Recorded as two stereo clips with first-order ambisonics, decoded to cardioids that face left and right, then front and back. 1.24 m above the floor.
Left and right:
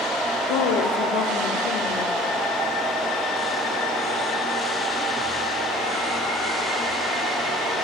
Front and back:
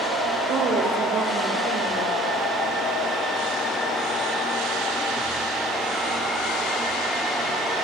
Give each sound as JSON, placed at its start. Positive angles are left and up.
{"t": 0.5, "sound": "a woman speaking", "azimuth_deg": 115, "distance_m": 3.0}